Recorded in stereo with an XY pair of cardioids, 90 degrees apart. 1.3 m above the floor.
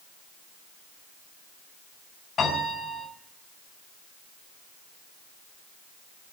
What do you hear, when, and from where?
2.4 s a piano: 60° left, 5.5 m